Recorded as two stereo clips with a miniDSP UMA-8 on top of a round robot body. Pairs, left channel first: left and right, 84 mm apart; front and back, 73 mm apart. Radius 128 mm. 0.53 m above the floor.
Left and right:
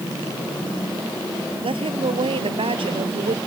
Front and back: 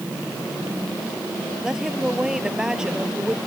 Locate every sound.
1.6 s a woman speaking: 100° right